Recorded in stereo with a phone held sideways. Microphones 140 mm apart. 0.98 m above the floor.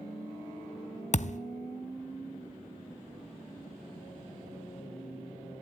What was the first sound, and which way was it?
A thud, 55° left (ahead or behind).